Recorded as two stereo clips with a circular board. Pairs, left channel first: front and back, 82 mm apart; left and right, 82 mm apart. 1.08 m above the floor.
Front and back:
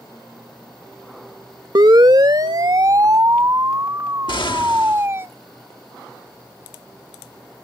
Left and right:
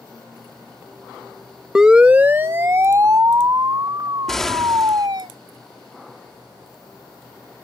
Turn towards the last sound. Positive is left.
turn(degrees=5)